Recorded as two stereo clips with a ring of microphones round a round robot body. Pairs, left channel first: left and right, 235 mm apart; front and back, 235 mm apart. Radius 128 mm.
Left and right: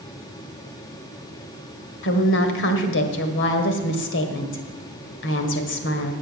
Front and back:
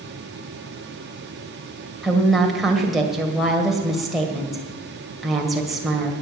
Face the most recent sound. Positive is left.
turn(degrees=90)